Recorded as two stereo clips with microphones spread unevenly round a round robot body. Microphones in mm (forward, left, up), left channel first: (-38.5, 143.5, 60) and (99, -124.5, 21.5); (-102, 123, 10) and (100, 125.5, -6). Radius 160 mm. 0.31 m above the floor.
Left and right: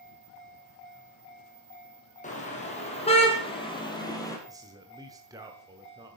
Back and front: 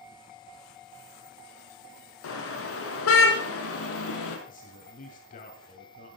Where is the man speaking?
130° right, 2 m.